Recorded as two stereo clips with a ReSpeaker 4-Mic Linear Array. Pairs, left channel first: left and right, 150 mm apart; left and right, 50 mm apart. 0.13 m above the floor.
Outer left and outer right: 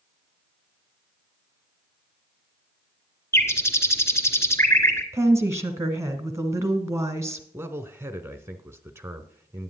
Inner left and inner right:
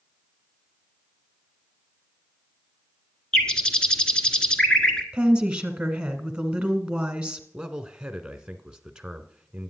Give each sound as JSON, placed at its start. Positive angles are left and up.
{"t": 3.3, "sound": "a bird", "side_deg": 20, "distance_m": 1.2}
{"t": 5.1, "sound": "a woman speaking", "side_deg": -20, "distance_m": 1.2}
{"t": 7.5, "sound": "a man speaking", "side_deg": -15, "distance_m": 1.1}